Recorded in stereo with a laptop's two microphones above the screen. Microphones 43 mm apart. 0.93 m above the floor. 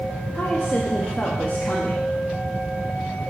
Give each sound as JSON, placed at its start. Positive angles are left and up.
{"t": 0.3, "sound": "a woman speaking", "side_deg": 45, "distance_m": 1.1}